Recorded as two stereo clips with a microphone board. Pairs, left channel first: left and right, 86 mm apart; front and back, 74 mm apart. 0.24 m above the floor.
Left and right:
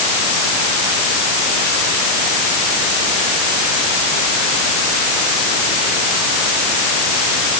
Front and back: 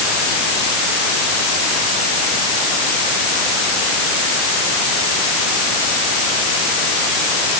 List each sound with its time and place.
Only background noise.